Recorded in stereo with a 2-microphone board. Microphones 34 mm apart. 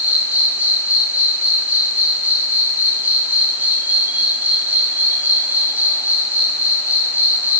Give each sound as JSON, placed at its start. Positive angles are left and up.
{"t": 0.0, "sound": "an insect", "side_deg": -50, "distance_m": 3.0}